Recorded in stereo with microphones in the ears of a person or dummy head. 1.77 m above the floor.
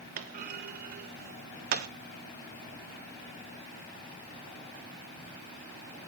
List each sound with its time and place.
0.2 s a clunk: 45° right (ahead or behind), 0.9 m